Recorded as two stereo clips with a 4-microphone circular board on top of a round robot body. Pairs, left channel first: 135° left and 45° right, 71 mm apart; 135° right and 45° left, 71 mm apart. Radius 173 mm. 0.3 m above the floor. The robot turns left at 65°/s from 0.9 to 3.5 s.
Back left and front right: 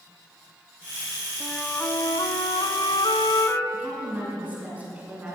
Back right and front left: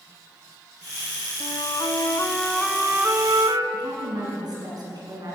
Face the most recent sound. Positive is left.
turn(degrees=20)